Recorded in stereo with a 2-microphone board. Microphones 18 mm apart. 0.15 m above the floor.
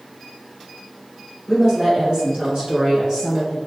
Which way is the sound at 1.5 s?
35° right (ahead or behind).